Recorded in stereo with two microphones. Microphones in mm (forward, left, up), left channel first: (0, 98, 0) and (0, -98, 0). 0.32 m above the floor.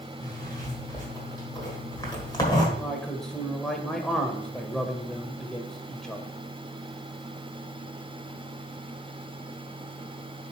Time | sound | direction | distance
0.2 | a zipper | 20° left (ahead or behind) | 1.5 m
2.8 | a man speaking | 5° left (ahead or behind) | 0.9 m